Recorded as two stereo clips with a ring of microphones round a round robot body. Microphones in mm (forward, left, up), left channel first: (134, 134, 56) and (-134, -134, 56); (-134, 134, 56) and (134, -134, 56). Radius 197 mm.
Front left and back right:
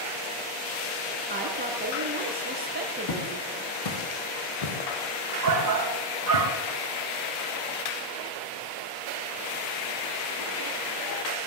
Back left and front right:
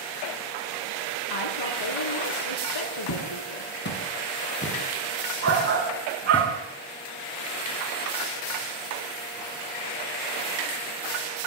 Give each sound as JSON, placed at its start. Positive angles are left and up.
{"t": 1.3, "sound": "a woman speaking", "azimuth_deg": 160, "distance_m": 4.5}
{"t": 3.1, "sound": "footsteps", "azimuth_deg": 85, "distance_m": 6.0}
{"t": 5.4, "sound": "a shout", "azimuth_deg": -90, "distance_m": 3.5}